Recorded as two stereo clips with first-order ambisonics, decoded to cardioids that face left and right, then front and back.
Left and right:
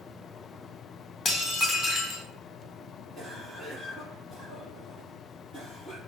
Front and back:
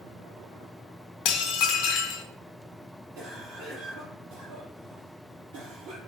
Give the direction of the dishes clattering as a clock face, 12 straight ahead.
11 o'clock.